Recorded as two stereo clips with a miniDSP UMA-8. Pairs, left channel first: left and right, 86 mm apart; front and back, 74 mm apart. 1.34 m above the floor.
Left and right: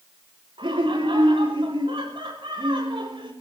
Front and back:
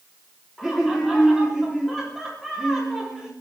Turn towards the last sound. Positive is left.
turn(degrees=-85)